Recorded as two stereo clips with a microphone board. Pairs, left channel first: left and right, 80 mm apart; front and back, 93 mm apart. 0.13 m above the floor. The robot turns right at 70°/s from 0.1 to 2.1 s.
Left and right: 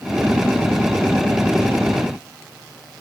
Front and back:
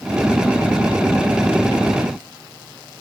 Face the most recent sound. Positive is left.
No sound to turn to.